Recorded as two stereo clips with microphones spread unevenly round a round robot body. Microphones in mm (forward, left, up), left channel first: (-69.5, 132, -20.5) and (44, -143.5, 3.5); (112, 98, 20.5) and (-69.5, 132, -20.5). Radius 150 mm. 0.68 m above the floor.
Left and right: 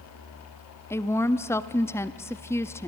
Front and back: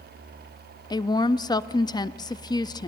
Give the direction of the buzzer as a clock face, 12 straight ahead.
I don't hear a buzzer.